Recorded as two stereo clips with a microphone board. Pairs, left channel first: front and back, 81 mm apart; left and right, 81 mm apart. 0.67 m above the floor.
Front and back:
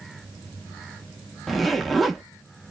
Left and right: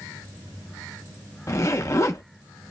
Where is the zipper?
85° left, 0.6 m.